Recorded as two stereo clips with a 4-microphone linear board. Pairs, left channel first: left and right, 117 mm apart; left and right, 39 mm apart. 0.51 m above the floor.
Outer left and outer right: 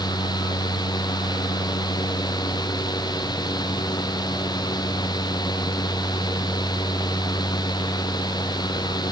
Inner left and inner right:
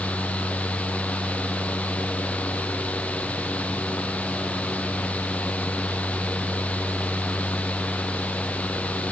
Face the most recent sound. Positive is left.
No sound to turn to.